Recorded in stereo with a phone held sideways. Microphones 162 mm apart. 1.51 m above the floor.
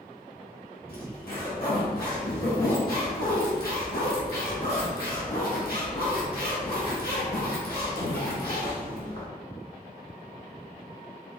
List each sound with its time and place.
0.9 s a zipper: 70° left (ahead or behind), 1.5 m